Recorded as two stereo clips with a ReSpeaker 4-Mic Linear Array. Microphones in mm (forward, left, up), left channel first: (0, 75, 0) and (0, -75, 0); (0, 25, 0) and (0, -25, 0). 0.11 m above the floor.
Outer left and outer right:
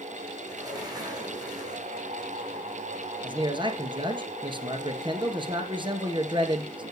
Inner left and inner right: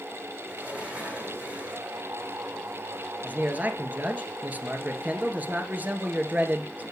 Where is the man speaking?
35° right (ahead or behind), 1.9 m.